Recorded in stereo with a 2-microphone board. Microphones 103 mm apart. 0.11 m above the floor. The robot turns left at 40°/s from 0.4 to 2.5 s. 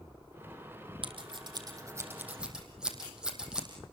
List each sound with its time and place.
1.0 s scissors: 60° right (ahead or behind), 5 m; by 3.7 s 5° right (ahead or behind), 5 m